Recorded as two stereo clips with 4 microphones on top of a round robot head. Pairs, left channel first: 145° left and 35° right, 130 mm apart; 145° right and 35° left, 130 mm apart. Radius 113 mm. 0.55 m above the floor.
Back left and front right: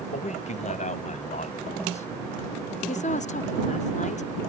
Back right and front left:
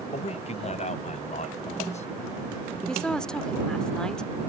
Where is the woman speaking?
130° left.